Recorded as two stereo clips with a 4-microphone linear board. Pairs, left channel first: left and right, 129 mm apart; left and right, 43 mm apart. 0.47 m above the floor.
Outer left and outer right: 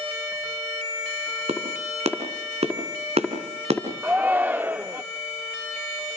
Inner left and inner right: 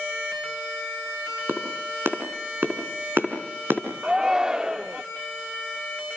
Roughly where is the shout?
Centre.